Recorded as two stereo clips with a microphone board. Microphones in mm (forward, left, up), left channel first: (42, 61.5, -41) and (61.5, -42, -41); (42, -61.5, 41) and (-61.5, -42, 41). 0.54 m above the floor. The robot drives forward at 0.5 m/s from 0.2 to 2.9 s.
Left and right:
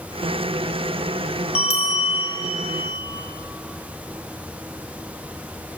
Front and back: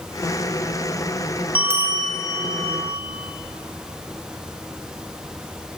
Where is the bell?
95° left, 0.8 m; by 3.0 s 135° left, 1.1 m.